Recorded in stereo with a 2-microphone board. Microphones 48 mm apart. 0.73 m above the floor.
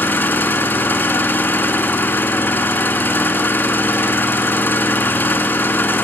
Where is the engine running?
45° left (ahead or behind), 1.9 m.